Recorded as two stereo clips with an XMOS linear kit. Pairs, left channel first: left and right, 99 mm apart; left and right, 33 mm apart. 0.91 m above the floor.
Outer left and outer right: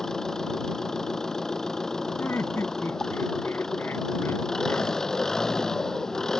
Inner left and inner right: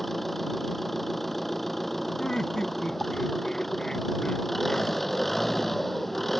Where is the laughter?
25° left (ahead or behind).